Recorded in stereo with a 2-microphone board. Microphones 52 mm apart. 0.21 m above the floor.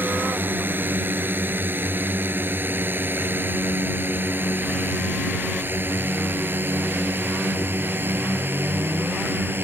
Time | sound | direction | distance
0.0 | a drone | 40° right (ahead or behind) | ?